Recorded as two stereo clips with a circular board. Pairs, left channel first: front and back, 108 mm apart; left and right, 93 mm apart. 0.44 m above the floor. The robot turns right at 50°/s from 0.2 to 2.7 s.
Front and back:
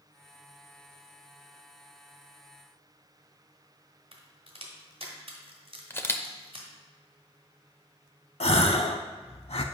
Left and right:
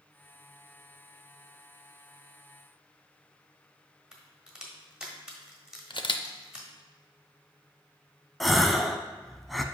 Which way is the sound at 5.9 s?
65° left.